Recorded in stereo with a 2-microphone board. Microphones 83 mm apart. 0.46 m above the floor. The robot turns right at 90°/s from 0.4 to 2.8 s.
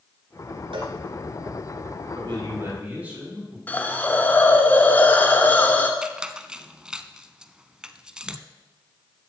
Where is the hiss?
20° left (ahead or behind), 1.1 m.